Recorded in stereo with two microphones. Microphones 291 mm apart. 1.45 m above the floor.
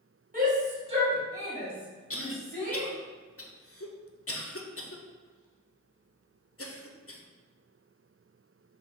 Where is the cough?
50° left (ahead or behind), 0.6 m.